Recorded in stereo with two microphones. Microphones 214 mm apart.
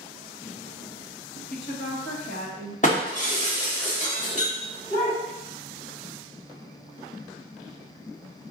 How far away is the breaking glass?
About 1.3 m.